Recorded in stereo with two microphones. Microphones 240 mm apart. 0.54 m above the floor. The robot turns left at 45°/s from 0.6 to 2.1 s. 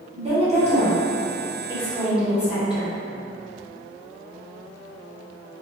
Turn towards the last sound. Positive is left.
turn(degrees=-5)  # may be behind; listen again after turning